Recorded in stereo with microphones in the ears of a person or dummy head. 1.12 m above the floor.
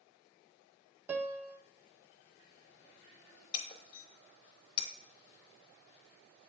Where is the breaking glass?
30° left (ahead or behind), 0.7 m.